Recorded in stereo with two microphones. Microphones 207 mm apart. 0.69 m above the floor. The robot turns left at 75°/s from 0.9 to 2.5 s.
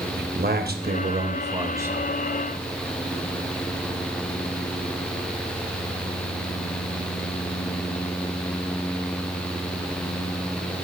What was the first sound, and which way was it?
A man speaking, 95° right.